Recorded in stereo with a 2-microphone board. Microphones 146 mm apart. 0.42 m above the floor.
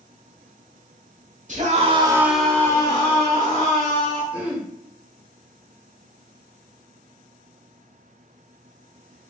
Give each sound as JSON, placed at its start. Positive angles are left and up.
{"t": 1.5, "sound": "a scream", "side_deg": -55, "distance_m": 1.3}
{"t": 4.3, "sound": "throat clearing", "side_deg": -5, "distance_m": 1.7}